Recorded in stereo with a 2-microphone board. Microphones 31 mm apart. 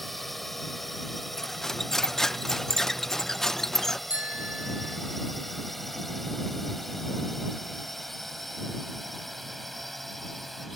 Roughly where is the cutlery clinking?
Centre.